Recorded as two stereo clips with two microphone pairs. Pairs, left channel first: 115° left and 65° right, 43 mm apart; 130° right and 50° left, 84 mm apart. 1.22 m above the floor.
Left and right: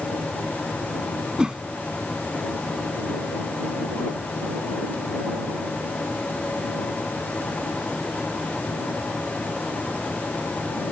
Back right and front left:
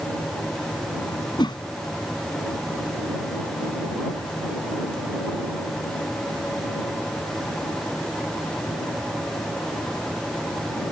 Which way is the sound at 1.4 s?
135° right.